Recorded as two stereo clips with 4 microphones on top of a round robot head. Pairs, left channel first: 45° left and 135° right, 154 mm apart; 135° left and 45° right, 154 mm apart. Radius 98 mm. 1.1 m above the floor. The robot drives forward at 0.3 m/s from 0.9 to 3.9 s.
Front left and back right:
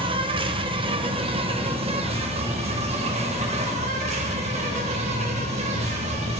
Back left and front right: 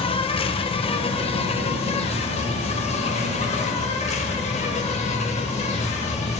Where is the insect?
Straight behind, 1.2 m.